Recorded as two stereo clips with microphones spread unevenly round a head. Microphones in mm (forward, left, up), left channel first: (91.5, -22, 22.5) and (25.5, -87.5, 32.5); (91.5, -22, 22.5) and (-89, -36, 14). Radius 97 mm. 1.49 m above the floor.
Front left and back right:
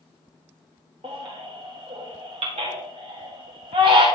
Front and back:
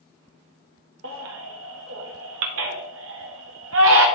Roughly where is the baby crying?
Behind.